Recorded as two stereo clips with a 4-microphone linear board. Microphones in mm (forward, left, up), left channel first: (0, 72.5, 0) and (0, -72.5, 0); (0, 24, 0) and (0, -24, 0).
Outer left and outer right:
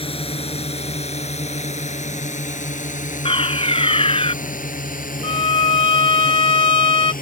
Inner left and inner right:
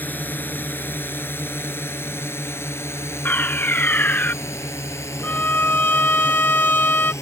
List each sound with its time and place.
0.0 s a drone: 40° left (ahead or behind); by 7.2 s 75° left (ahead or behind)
3.2 s a fire alarm: 40° left (ahead or behind)
5.2 s a violin: 40° left (ahead or behind)